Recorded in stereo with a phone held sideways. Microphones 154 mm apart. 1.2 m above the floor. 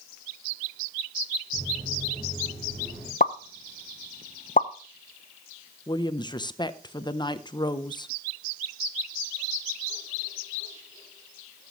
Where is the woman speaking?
30° left (ahead or behind), 0.7 m.